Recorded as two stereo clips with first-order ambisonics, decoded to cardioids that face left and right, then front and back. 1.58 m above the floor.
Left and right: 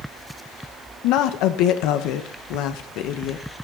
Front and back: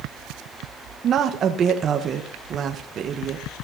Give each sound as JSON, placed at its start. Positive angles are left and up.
{"t": 1.0, "sound": "a woman speaking", "azimuth_deg": 120, "distance_m": 1.3}